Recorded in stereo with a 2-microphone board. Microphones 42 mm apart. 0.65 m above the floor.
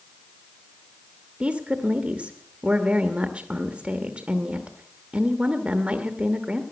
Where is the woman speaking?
30° right (ahead or behind), 1.0 m.